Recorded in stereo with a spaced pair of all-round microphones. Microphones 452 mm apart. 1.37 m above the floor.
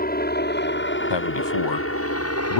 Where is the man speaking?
65° left (ahead or behind).